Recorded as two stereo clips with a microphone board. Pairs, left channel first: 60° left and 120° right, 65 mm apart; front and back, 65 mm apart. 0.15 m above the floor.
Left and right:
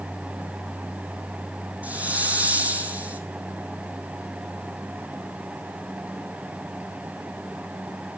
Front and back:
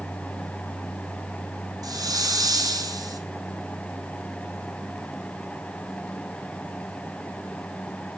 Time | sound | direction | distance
1.8 | a hiss | 170° left | 2.5 m